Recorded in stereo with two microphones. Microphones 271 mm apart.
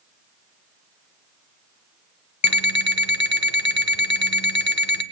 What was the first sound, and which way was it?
An alarm clock, 75° left (ahead or behind).